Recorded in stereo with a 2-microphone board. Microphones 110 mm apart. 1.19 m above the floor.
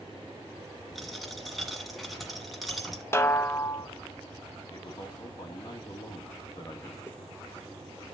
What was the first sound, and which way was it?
A dropped coin, centre (ahead or behind).